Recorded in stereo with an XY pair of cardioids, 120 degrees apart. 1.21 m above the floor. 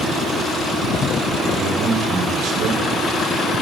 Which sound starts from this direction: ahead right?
A man speaking, at 1.4 s.